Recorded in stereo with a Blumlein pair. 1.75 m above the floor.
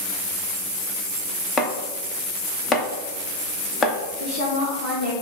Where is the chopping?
20° left, 0.7 m.